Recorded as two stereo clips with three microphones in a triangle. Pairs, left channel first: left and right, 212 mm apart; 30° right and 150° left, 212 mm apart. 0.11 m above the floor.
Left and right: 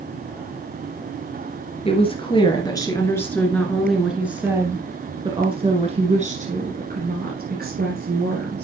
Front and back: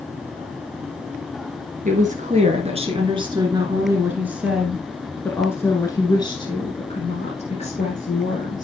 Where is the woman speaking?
135° left, 2 m; by 8.6 s 75° right, 3 m.